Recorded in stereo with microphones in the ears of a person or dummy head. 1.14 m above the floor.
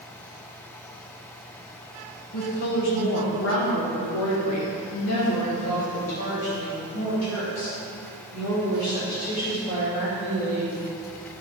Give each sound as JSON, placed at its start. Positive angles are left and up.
{"t": 2.3, "sound": "a woman speaking", "side_deg": 40, "distance_m": 1.3}